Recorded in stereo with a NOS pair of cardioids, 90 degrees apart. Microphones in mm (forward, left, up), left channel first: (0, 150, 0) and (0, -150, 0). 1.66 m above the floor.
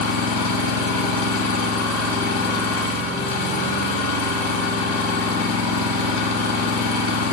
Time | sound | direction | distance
0.0 | an engine running | 70° left | 1.7 m